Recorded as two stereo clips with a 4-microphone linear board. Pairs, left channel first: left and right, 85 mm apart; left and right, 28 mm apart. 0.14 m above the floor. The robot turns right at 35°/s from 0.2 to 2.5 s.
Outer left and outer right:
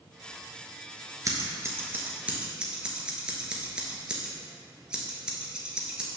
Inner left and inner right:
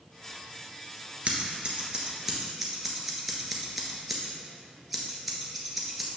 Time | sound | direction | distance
1.2 | scissors | 45° right (ahead or behind) | 1.2 m